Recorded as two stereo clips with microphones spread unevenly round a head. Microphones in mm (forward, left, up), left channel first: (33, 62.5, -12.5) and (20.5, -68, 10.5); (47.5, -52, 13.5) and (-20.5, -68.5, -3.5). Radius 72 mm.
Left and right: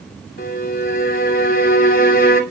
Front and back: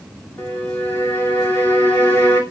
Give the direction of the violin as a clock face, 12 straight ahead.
9 o'clock.